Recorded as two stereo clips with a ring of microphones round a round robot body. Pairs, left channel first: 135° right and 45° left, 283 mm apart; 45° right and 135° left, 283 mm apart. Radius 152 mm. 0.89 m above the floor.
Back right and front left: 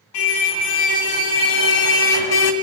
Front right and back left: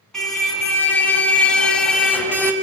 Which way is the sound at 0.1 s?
135° right.